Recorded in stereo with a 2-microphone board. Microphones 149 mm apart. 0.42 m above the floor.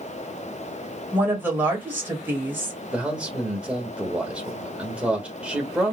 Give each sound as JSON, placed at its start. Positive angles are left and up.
{"t": 1.1, "sound": "a woman speaking", "side_deg": -15, "distance_m": 2.0}
{"t": 2.9, "sound": "a man speaking", "side_deg": -10, "distance_m": 1.2}